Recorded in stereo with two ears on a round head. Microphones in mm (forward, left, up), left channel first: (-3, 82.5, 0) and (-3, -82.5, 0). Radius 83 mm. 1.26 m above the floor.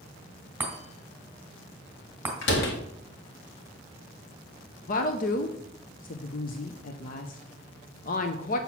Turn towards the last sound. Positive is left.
turn(degrees=45)  # may be behind; listen again after turning